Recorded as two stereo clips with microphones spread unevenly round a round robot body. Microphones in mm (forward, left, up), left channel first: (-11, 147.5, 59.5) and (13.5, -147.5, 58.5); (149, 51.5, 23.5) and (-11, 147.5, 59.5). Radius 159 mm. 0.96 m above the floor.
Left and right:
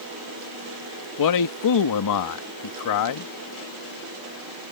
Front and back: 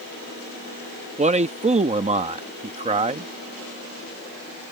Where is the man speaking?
90° left.